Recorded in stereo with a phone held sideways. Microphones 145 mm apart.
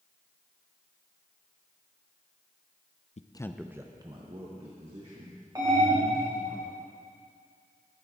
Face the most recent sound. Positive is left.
turn(degrees=-25)  # may be behind; listen again after turning